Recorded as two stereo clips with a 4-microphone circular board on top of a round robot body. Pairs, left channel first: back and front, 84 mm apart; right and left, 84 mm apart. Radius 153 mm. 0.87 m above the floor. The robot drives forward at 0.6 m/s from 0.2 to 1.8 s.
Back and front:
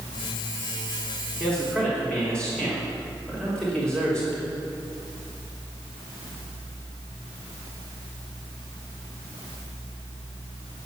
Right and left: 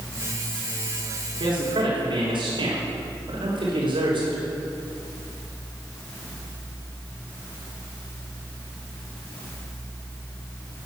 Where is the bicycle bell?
I don't hear a bicycle bell.